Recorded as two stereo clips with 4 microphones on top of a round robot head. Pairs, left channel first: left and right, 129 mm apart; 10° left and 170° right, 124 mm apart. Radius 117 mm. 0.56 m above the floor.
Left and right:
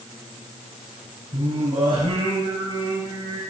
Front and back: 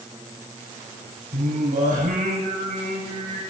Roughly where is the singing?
Behind right.